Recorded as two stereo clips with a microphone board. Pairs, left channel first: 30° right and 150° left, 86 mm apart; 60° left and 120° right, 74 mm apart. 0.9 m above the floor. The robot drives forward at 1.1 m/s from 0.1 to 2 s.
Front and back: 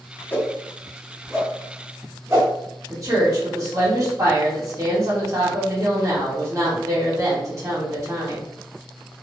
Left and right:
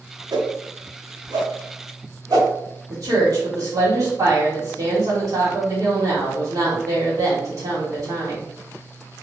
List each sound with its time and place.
0.3 s a whoosh: 100° right, 1.2 m; by 2.5 s 150° right, 2.5 m
2.9 s a woman speaking: 160° right, 2.5 m